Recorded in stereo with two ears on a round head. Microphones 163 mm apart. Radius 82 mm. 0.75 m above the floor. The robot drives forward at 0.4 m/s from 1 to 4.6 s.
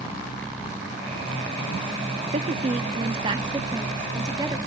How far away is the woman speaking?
About 0.8 m.